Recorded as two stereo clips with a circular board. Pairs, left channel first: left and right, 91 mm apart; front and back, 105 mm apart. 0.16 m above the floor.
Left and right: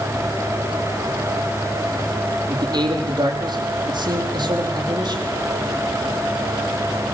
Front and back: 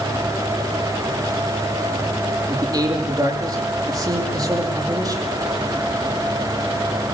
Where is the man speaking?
130° right, 7 m.